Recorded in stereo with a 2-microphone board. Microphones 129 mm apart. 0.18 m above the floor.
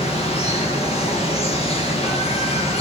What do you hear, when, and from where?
0.0 s running water: 50° left (ahead or behind), 7 m